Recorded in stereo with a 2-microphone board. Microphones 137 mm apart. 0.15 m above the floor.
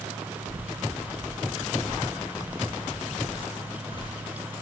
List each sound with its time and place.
0.5 s footsteps: 45° right (ahead or behind), 2.5 m; by 2.0 s 50° right (ahead or behind), 1.8 m
2.4 s footsteps: 60° left (ahead or behind), 3 m; by 4.6 s 30° left (ahead or behind), 3.5 m